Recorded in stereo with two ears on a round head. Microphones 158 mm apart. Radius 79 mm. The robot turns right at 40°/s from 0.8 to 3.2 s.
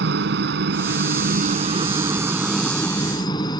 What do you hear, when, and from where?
0.0 s a helicopter: 70° right; by 3.6 s 25° left